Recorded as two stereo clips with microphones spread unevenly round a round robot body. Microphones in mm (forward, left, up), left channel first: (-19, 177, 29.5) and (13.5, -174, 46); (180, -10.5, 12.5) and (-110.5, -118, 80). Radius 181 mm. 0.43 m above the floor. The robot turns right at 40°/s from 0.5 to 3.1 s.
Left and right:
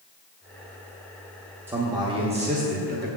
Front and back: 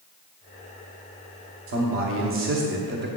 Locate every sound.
1.7 s a man speaking: 170° right, 0.9 m; by 3.1 s 115° right, 0.9 m